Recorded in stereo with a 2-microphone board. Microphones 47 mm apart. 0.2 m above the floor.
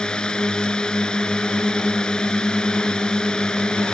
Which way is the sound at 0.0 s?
15° left (ahead or behind).